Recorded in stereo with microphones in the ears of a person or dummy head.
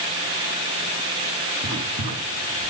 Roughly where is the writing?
Right.